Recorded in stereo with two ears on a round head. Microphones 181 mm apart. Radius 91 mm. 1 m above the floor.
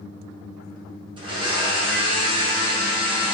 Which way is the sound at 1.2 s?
25° right (ahead or behind).